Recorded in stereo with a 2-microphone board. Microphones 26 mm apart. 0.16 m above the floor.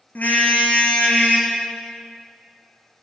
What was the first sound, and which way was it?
A car horn, 85° left.